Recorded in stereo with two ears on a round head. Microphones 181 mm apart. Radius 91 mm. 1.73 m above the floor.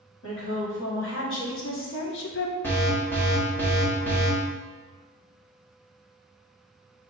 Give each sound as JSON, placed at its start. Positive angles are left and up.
{"t": 0.2, "sound": "a woman speaking", "side_deg": 70, "distance_m": 1.9}
{"t": 2.6, "sound": "an alarm", "side_deg": 10, "distance_m": 1.0}